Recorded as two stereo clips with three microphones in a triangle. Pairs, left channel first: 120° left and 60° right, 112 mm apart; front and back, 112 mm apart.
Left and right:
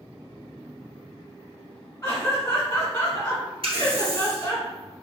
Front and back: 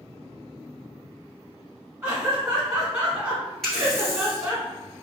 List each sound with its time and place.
2.0 s laughter: 120° left, 1.7 m
3.6 s a running tap: 85° right, 1.7 m